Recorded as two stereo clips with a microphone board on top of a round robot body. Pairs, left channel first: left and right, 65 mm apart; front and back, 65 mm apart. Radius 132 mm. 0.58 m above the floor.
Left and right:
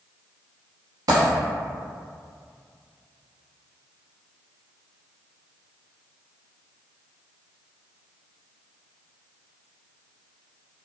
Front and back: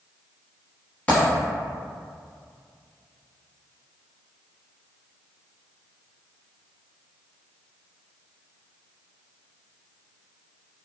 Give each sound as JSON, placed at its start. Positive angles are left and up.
{"t": 1.1, "sound": "a dropped coin", "azimuth_deg": -70, "distance_m": 0.9}